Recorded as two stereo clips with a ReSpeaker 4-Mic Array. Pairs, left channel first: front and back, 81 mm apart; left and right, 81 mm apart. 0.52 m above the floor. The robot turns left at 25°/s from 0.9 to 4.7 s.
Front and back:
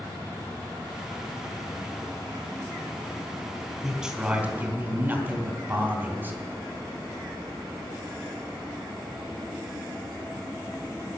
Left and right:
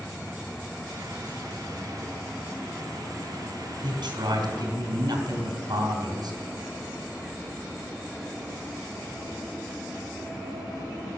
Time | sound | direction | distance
3.8 | a man speaking | 95° right | 3.5 m